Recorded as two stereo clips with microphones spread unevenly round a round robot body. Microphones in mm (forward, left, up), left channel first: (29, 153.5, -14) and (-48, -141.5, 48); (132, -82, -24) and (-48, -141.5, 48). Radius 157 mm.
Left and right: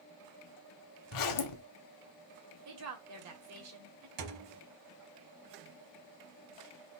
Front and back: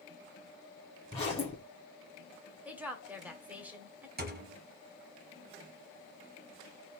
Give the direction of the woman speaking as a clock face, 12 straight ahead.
2 o'clock.